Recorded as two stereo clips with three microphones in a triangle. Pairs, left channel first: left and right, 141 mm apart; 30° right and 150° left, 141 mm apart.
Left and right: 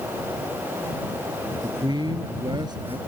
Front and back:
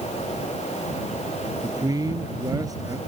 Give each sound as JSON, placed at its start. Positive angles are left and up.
{"t": 1.6, "sound": "a man speaking", "azimuth_deg": -145}